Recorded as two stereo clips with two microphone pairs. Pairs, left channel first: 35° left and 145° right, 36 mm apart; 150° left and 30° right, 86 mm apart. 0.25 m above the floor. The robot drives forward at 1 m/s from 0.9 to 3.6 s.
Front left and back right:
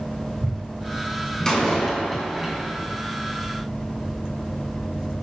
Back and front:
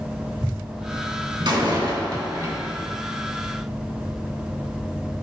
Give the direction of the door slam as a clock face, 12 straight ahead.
1 o'clock.